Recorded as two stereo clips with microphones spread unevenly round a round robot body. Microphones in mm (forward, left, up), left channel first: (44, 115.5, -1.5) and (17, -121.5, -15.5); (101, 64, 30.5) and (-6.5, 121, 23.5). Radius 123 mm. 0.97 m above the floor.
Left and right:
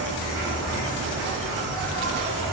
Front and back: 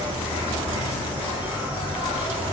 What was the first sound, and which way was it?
An insect, 135° right.